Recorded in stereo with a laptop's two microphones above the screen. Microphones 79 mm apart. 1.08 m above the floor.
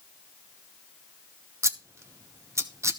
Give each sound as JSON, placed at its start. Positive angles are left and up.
{"t": 1.6, "sound": "scissors", "side_deg": -35, "distance_m": 0.8}